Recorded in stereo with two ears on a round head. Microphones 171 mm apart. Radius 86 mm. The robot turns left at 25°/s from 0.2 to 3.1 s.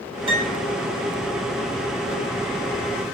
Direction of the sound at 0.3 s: 25° right (ahead or behind).